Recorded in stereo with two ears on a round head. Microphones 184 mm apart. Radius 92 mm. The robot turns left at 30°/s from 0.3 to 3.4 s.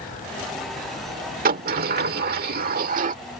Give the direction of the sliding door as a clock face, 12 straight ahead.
2 o'clock.